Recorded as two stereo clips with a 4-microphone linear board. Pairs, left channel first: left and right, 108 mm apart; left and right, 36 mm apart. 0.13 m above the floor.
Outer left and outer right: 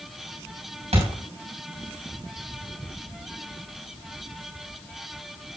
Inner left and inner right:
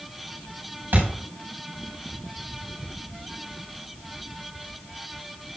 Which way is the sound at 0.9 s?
75° right (ahead or behind).